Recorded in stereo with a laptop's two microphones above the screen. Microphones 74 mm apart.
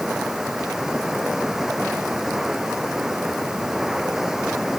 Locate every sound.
0.0 s running water: 5° right (ahead or behind)